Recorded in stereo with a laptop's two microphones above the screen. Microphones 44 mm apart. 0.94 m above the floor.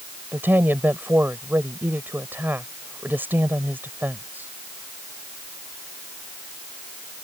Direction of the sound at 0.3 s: 50° right (ahead or behind).